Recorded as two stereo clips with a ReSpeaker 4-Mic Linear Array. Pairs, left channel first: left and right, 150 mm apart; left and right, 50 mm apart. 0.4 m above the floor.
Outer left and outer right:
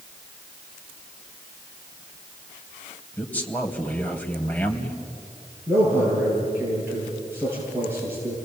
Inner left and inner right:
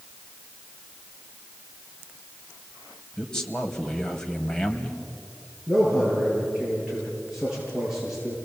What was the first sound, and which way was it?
A man speaking, 10° left (ahead or behind).